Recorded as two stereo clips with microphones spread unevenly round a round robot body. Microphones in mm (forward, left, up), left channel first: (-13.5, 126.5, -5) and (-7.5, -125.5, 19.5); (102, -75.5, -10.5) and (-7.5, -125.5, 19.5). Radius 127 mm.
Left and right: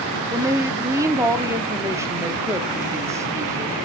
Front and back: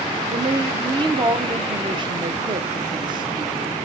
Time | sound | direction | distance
0.3 | a woman speaking | 165° right | 0.7 m